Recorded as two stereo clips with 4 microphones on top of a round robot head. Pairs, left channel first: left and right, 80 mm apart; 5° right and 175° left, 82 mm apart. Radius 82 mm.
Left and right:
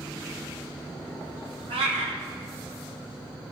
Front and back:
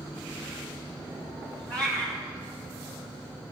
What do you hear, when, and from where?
1.7 s a cat meowing: 85° right, 1.4 m